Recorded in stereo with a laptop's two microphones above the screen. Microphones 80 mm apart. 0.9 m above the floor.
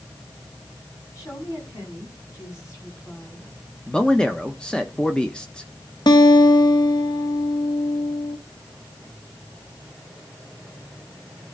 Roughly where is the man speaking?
Centre.